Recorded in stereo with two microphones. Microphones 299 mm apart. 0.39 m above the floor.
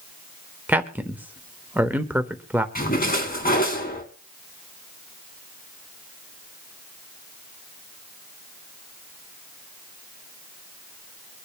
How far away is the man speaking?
About 0.8 m.